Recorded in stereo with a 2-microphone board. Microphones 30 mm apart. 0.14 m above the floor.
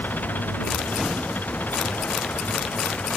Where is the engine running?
75° left (ahead or behind).